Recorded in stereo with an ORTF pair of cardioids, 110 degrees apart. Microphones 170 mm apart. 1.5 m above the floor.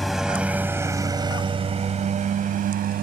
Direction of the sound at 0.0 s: Straight ahead.